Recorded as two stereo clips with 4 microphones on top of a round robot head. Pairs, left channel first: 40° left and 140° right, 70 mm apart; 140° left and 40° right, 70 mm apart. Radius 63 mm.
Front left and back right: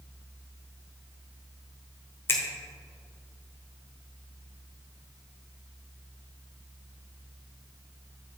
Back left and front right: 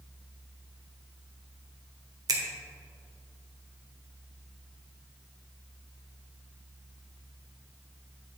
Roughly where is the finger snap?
Ahead.